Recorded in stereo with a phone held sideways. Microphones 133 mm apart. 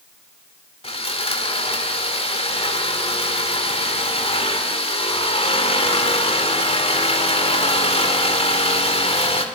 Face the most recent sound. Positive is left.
turn(degrees=50)  # may be behind; listen again after turning